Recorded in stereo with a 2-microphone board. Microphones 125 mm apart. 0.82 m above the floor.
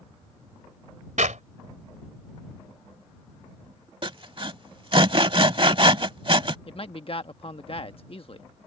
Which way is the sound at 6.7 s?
50° left (ahead or behind).